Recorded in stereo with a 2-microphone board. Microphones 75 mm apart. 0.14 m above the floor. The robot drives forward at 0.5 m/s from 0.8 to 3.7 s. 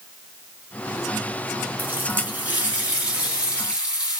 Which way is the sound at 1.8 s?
25° right (ahead or behind).